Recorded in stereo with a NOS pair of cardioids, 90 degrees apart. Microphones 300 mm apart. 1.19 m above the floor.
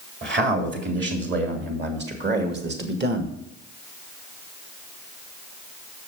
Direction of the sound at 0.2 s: 35° right.